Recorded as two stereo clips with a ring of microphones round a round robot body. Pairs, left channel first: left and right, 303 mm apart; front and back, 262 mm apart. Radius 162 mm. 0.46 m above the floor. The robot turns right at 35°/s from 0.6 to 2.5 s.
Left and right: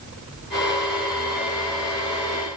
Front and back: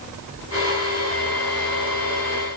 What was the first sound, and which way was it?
Only background noise.